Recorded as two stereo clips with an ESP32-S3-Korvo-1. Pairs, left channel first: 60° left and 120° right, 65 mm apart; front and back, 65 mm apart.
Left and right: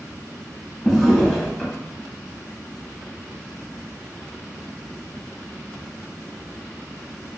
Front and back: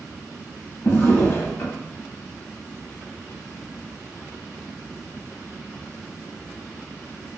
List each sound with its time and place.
0.8 s a drawer: 20° right, 0.8 m